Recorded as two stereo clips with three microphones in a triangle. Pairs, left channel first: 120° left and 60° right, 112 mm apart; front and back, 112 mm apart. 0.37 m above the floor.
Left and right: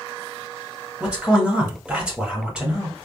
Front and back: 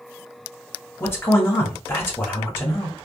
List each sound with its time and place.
1.0 s a man speaking: 5° left, 0.9 m